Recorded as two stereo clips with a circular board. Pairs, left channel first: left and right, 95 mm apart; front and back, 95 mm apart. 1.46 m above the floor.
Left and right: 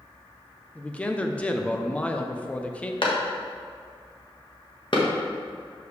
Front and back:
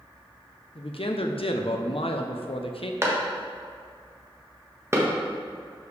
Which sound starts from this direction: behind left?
A clap, at 3.0 s.